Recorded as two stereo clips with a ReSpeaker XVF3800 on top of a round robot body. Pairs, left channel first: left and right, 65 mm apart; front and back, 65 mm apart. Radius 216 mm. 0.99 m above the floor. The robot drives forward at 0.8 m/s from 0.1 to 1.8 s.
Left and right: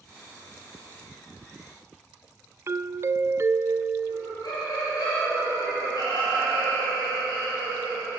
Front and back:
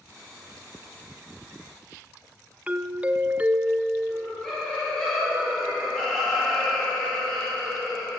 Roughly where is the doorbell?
Behind right.